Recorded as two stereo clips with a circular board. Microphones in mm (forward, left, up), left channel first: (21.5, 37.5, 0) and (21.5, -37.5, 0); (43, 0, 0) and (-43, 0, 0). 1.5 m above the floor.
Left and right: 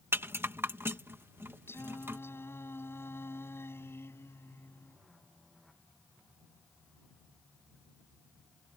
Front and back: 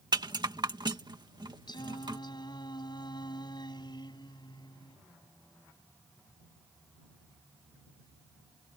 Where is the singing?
35° left.